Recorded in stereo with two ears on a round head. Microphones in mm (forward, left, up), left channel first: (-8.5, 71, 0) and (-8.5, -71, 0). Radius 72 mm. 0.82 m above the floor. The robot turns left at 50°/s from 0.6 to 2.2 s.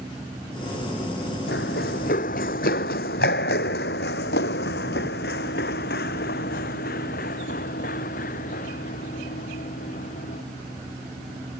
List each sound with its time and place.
1.5 s running footsteps: 70° left (ahead or behind); by 10.4 s 50° left (ahead or behind)